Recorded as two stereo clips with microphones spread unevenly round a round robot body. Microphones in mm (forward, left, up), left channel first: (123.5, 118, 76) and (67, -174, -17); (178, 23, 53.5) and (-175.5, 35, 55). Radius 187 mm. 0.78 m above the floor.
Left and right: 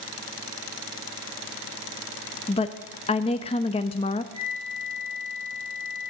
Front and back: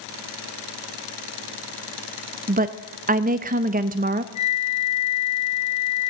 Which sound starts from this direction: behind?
A woman speaking, at 2.5 s.